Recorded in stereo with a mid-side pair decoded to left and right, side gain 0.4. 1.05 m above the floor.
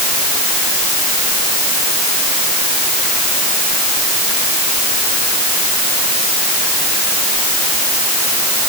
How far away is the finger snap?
I don't hear a finger snap.